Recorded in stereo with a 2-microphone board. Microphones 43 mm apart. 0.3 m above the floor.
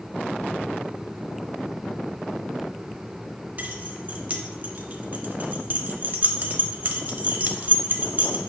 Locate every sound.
3.6 s keys jangling: 40° right (ahead or behind), 0.7 m